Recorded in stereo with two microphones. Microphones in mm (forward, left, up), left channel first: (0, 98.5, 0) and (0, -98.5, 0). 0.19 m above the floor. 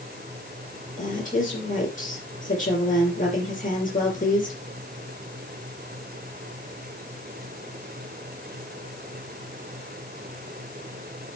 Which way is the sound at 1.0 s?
45° left (ahead or behind).